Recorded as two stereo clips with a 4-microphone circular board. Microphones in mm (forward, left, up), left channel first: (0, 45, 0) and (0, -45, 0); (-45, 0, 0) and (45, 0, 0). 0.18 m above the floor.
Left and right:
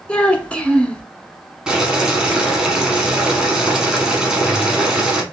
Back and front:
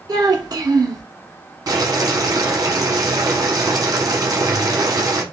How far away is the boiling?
About 0.9 m.